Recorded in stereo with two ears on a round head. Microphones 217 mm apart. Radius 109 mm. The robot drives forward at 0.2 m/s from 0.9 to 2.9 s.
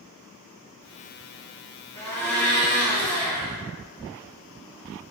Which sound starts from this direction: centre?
A blender, at 1.9 s.